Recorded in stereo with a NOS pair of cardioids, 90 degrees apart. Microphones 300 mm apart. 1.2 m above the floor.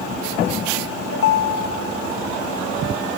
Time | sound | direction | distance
1.1 | a ringtone | 50° left | 0.9 m